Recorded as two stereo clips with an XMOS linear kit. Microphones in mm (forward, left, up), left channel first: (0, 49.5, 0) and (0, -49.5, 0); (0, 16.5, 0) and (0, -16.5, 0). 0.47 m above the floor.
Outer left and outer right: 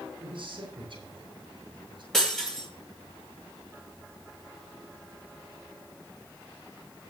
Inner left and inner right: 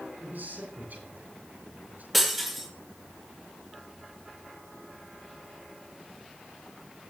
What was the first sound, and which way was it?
A man speaking, 65° right (ahead or behind).